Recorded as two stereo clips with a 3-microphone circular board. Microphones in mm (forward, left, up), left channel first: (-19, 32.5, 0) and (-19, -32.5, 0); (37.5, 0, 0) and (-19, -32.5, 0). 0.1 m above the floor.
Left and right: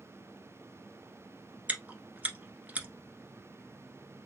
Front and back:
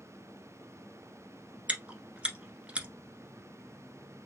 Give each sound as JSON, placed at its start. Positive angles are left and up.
{"t": 1.7, "sound": "chewing", "azimuth_deg": -110, "distance_m": 1.1}